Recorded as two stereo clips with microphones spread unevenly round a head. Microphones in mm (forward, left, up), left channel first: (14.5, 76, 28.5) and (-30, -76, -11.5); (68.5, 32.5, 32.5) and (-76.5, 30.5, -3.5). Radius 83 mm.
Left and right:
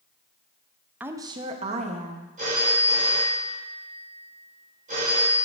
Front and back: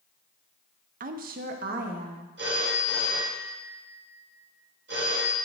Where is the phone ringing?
155° right, 2 m.